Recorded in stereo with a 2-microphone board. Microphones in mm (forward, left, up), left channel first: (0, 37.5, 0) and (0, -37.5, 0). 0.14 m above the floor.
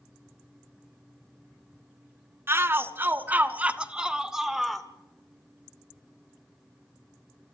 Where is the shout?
30° right (ahead or behind), 1.3 m; by 4.9 s 5° left (ahead or behind), 1.3 m.